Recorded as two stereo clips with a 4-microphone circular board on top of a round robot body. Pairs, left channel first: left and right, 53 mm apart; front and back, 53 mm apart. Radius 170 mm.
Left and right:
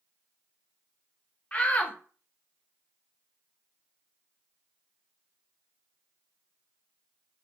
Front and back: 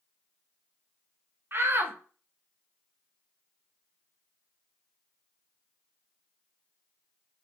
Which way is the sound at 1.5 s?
150° left.